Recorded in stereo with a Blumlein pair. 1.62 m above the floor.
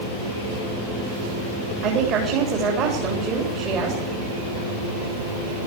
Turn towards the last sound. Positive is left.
turn(degrees=-35)